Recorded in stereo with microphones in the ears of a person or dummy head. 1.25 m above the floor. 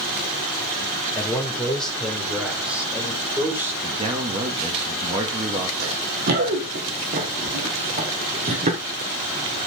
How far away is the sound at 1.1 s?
About 3.5 m.